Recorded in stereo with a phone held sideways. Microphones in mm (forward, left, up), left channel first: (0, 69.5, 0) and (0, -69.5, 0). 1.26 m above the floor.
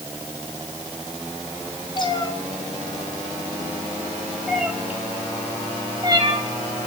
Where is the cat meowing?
35° left (ahead or behind), 2.5 m; by 6.4 s 35° right (ahead or behind), 2.5 m.